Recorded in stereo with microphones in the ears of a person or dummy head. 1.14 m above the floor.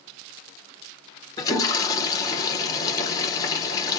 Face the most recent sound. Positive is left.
turn(degrees=20)  # may be behind; listen again after turning